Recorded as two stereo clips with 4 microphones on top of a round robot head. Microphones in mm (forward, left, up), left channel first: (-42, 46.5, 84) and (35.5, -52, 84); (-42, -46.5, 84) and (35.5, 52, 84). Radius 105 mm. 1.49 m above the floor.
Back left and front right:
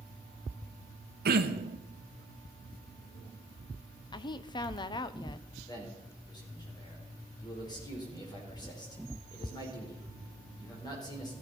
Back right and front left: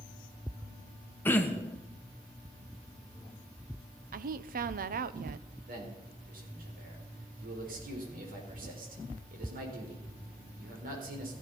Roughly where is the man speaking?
Ahead left.